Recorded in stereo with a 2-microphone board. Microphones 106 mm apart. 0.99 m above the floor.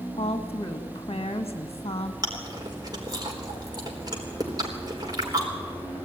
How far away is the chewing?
About 4 m.